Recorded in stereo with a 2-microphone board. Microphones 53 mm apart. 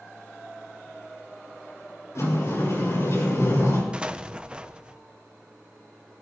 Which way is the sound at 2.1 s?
60° left (ahead or behind).